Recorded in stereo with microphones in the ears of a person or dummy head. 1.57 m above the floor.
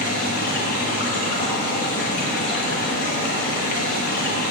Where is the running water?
50° left (ahead or behind), 1.1 m.